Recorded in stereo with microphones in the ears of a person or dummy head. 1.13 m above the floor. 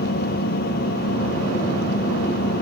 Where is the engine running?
60° left (ahead or behind).